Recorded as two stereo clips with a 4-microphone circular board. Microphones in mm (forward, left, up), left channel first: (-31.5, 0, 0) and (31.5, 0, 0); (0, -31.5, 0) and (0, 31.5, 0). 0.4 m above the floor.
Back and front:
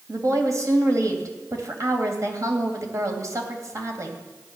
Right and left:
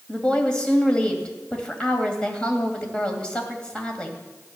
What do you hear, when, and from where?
0.1 s a woman speaking: 20° right, 2.5 m